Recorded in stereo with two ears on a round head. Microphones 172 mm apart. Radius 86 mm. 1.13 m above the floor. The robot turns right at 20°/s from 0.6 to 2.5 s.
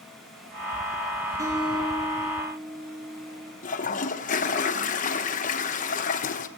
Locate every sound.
1.4 s a guitar: 15° right (ahead or behind), 7 m; by 3.5 s 40° right (ahead or behind), 7 m
3.6 s a toilet flushing: 45° left (ahead or behind), 1.0 m